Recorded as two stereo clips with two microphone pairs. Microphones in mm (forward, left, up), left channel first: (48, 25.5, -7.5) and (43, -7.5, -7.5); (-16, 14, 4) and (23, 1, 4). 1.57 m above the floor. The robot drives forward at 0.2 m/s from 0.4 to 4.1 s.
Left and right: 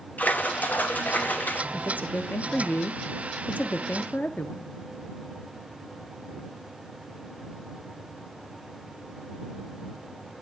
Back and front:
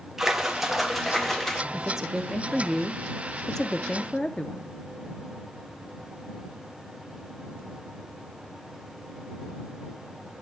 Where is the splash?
65° left, 0.7 m; by 1.6 s 85° left, 0.7 m.